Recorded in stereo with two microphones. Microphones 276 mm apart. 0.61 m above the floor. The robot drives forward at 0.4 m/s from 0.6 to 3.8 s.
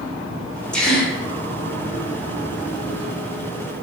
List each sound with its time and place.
0.7 s a gasp: 5° left (ahead or behind), 0.8 m